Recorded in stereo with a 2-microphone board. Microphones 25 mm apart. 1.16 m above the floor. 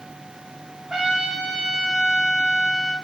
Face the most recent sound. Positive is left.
turn(degrees=-20)  # may be behind; listen again after turning